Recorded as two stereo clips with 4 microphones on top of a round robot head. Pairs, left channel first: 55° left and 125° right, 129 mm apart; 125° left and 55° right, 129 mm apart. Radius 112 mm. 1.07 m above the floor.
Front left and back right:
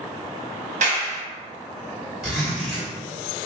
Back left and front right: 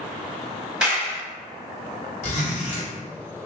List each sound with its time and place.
0.8 s a clap: 135° right, 1.3 m
2.2 s a zipper: 150° left, 1.8 m